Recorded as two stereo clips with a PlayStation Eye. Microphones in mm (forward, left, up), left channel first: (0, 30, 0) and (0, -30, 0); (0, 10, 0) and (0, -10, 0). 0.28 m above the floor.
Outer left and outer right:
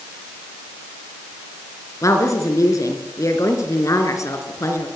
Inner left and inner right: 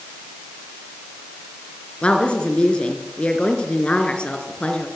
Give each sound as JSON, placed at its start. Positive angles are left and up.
{"t": 2.0, "sound": "a woman speaking", "side_deg": 65, "distance_m": 4.0}